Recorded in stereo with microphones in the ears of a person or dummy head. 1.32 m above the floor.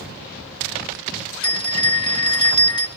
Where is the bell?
25° left (ahead or behind), 0.6 m.